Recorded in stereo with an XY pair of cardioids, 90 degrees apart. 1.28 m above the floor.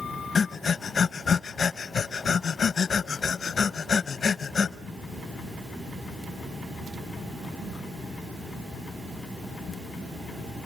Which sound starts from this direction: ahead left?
Breathing, at 0.3 s.